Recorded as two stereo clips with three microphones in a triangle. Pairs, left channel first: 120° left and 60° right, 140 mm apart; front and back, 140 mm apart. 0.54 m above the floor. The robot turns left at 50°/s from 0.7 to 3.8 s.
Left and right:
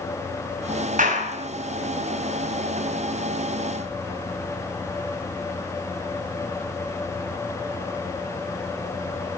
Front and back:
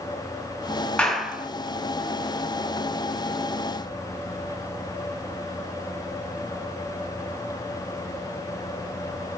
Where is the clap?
85° right, 4.5 m; by 1.5 s 110° right, 4.5 m.